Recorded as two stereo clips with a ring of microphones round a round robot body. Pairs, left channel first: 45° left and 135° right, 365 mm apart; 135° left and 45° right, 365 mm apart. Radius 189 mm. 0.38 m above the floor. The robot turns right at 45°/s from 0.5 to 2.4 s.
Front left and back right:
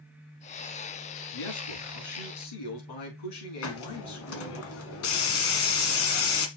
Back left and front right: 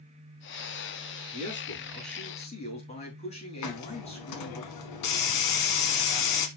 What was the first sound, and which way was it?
A man speaking, 15° left.